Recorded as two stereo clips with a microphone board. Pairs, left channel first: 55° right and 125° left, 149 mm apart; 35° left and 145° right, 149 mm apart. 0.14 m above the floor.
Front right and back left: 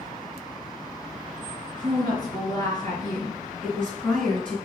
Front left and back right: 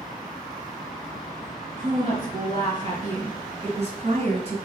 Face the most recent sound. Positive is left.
turn(degrees=-135)